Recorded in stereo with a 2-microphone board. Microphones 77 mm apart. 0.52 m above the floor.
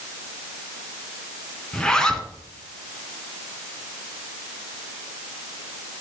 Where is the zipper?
10° left (ahead or behind), 1.6 m.